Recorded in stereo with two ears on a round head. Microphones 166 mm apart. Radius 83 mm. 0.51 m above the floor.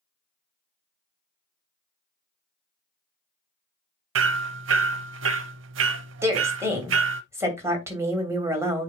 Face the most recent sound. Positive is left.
turn(degrees=-15)  # may be behind; listen again after turning